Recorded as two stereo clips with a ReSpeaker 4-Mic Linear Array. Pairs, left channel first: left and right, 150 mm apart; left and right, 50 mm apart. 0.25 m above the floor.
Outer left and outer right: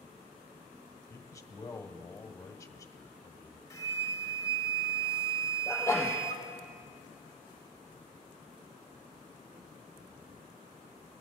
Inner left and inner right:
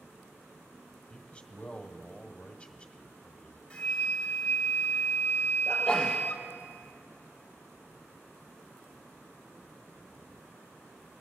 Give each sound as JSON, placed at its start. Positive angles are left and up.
{"t": 1.1, "sound": "a man speaking", "side_deg": 20, "distance_m": 1.0}
{"t": 3.7, "sound": "a flute", "side_deg": 20, "distance_m": 0.8}
{"t": 5.7, "sound": "a sneeze", "side_deg": 15, "distance_m": 5.0}